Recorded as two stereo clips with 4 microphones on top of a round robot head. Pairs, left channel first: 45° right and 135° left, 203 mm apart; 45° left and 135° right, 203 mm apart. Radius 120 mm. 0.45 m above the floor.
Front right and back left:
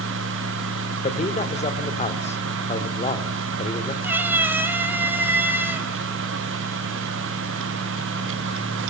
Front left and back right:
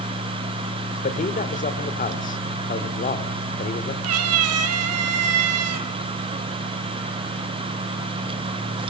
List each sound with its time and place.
1.0 s a man speaking: 5° left, 2 m
4.0 s a cat meowing: 140° right, 1.4 m